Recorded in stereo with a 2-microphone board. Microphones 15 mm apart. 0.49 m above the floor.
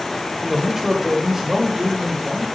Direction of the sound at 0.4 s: 5° right (ahead or behind).